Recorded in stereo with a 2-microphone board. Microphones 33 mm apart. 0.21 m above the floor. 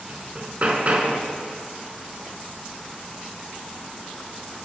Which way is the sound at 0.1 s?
45° right (ahead or behind).